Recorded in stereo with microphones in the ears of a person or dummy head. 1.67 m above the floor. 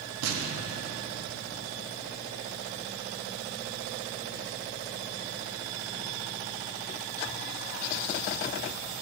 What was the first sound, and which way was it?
An explosion, 85° right.